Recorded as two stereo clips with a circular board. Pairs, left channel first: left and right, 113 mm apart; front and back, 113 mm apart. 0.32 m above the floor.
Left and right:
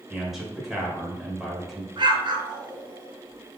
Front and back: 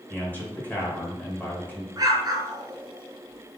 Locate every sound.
0.1 s a man speaking: 10° right, 1.3 m
2.0 s an explosion: 130° right, 0.9 m